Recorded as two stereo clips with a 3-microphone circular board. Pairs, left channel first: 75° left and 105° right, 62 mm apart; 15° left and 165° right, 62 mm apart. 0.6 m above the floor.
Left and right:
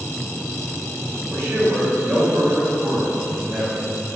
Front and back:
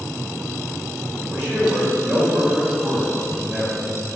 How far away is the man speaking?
About 1.9 m.